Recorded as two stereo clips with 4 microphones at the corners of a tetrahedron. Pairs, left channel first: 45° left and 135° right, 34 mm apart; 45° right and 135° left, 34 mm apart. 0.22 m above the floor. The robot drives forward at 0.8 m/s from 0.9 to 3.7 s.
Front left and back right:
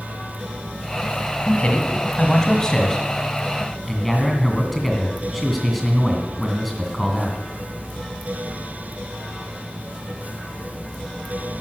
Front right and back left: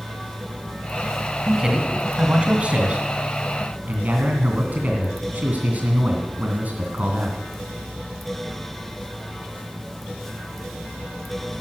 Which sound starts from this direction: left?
A man speaking, at 1.4 s.